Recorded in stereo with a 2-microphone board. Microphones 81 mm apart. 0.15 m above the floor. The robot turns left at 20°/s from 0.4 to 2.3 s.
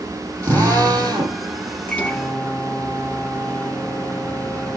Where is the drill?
35° right (ahead or behind), 5 m; by 1.4 s 55° right (ahead or behind), 5 m.